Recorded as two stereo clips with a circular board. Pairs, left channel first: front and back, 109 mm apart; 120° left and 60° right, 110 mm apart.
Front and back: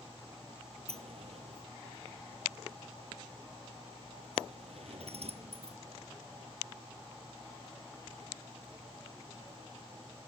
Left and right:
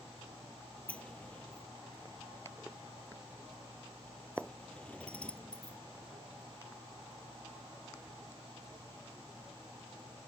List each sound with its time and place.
0.9 s a sliding door: 160° right